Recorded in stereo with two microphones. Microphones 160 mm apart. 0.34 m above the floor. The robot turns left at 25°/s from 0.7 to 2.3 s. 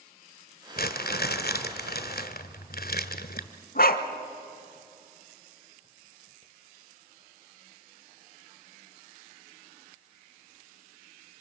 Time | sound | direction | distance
0.8 | crumpling | 110° left | 1.3 m
3.8 | a dog barking | 70° left (ahead or behind) | 1.4 m